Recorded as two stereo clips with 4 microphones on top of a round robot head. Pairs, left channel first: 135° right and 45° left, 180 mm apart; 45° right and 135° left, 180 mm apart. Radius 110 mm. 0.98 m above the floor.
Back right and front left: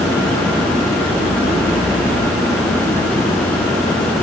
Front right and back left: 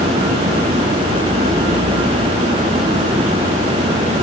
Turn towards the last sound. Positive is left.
No sound to turn to.